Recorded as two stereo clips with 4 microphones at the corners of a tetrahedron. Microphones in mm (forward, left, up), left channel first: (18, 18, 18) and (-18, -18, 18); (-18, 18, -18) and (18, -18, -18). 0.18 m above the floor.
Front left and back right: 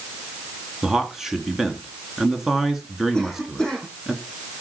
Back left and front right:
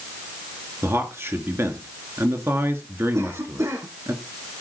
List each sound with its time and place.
0.8 s a man speaking: 50° right, 2.5 m
3.1 s a cough: 35° right, 9 m